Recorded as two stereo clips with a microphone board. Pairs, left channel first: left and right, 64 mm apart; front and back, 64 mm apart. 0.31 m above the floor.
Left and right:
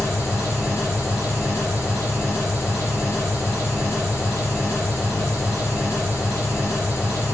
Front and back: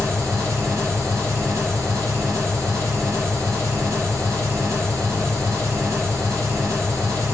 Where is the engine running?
140° left, 3 m.